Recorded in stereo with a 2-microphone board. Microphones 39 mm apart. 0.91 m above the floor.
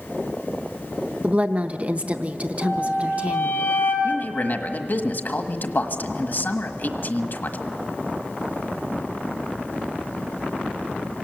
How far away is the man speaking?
About 1.4 m.